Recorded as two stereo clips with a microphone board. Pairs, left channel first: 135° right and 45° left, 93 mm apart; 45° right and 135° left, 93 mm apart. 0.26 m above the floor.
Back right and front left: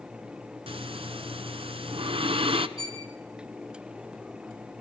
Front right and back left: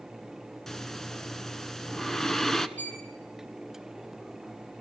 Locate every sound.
0.7 s breathing: 40° left, 0.9 m
2.8 s a violin: 25° left, 3.5 m